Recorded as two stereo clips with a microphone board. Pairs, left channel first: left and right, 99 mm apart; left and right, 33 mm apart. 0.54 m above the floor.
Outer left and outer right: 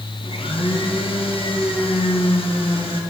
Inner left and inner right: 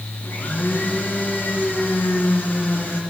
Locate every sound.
0.2 s a blender: 65° left (ahead or behind), 3.5 m